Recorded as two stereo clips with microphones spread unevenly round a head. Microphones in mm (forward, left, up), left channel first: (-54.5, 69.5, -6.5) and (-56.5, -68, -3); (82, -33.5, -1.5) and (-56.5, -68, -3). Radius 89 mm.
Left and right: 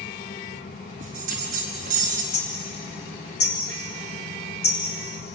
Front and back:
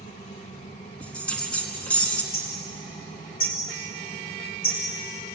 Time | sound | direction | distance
0.0 | a fan | 70° left | 1.1 m
1.0 | a bell | 65° right | 4 m
2.3 | hammering | 75° left | 5.5 m